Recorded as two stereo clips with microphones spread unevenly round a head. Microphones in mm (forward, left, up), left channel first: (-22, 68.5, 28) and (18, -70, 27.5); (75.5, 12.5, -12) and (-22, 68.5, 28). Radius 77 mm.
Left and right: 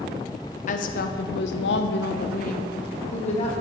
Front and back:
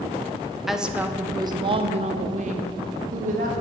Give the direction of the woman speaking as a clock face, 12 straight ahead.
10 o'clock.